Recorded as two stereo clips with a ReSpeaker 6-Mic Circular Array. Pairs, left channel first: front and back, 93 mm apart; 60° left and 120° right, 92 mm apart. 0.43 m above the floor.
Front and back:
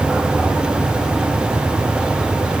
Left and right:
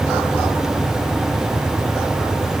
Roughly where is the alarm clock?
No alarm clock in this recording.